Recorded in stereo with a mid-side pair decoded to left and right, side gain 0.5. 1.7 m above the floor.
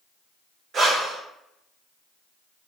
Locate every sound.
0.7 s breathing: 60° right, 1.4 m